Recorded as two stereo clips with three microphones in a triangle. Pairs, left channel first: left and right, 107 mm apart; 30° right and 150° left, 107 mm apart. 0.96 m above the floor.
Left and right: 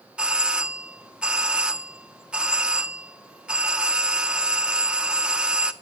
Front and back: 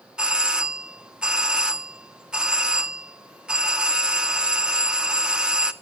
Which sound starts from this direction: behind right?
A doorbell, at 0.2 s.